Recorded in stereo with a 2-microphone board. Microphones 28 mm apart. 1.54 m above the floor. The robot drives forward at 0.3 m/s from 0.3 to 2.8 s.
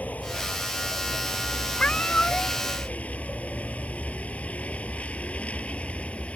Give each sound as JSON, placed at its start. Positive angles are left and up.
{"t": 0.0, "sound": "a vehicle", "side_deg": 70}
{"t": 1.8, "sound": "a cat meowing", "side_deg": 50}